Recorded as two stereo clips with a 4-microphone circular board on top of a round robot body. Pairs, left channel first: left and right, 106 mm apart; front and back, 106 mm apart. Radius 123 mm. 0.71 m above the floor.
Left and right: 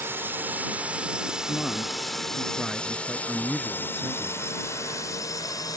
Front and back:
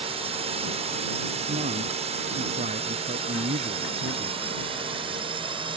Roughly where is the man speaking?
Behind.